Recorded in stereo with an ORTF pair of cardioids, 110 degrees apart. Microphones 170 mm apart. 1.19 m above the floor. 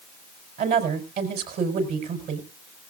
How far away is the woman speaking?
About 4.5 m.